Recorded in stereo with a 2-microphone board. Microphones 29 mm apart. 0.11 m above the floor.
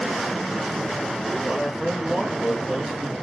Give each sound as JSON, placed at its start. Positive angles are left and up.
{"t": 1.4, "sound": "a man speaking", "side_deg": 0, "distance_m": 1.7}